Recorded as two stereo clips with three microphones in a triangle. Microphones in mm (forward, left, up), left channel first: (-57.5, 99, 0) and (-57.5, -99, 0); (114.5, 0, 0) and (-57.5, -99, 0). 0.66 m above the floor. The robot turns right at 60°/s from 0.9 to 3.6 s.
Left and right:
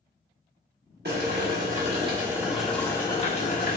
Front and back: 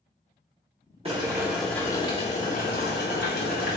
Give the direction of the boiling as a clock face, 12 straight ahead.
3 o'clock.